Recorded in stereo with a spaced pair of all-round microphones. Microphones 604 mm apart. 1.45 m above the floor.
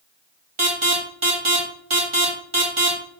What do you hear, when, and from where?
0.6 s an alarm: 50° right (ahead or behind), 1.9 m